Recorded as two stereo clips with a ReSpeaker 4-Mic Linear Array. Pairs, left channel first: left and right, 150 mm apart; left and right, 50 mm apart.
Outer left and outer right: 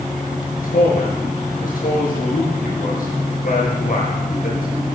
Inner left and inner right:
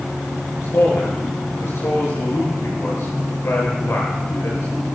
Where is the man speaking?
65° left (ahead or behind), 7.5 m.